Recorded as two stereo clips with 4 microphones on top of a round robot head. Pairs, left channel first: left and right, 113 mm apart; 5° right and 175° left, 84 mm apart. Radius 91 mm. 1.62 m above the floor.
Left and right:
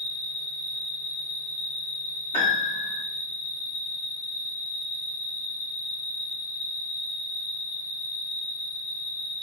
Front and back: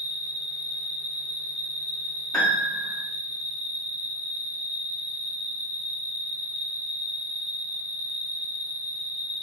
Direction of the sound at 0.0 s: 105° left.